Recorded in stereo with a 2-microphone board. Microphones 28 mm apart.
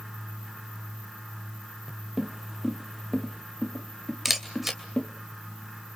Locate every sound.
2.2 s footsteps: 15° right (ahead or behind), 1.4 m; by 5.1 s 25° left (ahead or behind), 2.5 m
4.2 s a camera shutter: 10° right (ahead or behind), 2.5 m